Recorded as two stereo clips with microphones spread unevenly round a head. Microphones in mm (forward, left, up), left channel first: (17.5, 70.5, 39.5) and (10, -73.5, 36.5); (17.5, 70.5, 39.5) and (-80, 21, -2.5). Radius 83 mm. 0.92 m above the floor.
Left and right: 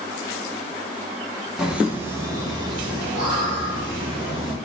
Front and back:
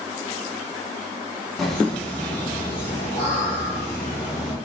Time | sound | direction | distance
1.6 | laughter | 175° right | 0.9 m